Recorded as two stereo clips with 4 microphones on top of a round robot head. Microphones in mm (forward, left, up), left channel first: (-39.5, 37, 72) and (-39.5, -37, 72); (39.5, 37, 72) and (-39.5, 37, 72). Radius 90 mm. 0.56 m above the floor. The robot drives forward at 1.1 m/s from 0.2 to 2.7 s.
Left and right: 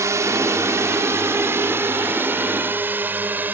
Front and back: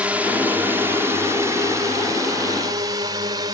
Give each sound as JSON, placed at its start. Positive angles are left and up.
{"t": 0.0, "sound": "a drone", "azimuth_deg": -115}